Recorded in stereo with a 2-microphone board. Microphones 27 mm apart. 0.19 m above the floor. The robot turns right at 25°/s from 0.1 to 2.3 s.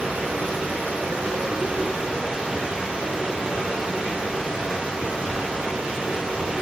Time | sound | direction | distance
0.0 | running water | 100° right | 0.8 m